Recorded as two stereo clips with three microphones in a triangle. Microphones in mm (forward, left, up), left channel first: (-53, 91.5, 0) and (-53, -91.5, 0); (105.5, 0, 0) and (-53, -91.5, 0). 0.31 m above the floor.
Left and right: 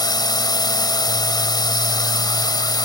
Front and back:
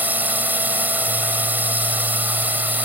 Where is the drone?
140° left.